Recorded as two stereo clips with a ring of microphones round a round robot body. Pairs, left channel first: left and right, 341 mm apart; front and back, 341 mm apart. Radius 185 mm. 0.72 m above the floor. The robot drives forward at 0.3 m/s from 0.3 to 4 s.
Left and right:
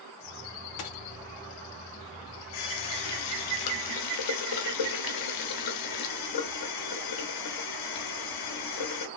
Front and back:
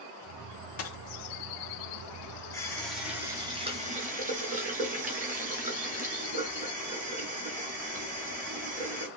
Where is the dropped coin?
50° left, 0.6 m; by 1.0 s 55° left, 0.6 m.